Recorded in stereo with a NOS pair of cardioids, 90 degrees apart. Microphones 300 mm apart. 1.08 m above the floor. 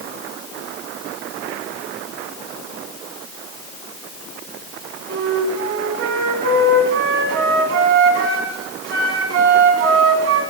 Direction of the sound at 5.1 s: 60° right.